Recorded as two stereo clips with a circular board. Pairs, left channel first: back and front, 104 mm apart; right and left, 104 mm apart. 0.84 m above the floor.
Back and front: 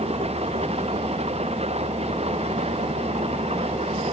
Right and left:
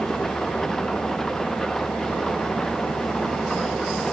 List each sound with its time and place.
0.0 s an engine running: 5° right